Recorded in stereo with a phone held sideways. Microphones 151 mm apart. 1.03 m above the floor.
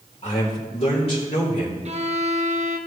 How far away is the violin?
About 0.9 m.